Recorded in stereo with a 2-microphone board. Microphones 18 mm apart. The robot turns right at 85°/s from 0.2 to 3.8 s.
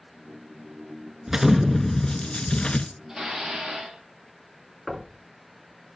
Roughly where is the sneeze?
I don't hear a sneeze.